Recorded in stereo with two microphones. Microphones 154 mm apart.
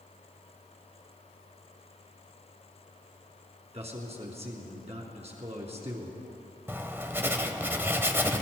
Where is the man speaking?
45° right (ahead or behind), 3 m.